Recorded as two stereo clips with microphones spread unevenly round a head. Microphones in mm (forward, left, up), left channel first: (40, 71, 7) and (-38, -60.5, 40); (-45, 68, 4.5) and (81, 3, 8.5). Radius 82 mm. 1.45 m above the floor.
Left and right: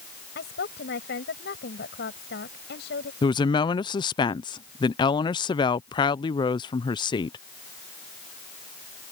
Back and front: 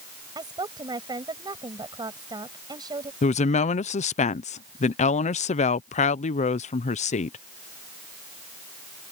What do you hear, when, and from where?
0.3 s a woman speaking: 35° left
3.2 s a woman speaking: 115° left